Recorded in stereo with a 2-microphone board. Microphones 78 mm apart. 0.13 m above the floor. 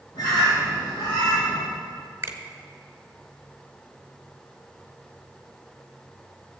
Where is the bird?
75° left (ahead or behind), 4.5 m.